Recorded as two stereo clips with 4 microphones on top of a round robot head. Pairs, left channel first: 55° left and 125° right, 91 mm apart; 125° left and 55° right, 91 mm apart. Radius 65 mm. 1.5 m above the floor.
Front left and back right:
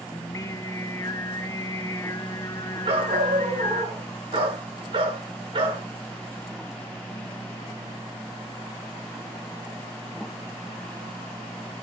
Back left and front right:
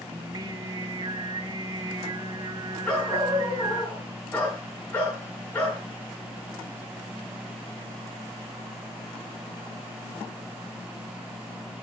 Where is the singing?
5° right, 0.9 m.